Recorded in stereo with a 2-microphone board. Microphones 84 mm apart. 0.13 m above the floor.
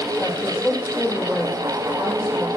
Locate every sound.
0.2 s a woman speaking: 10° right (ahead or behind), 5.5 m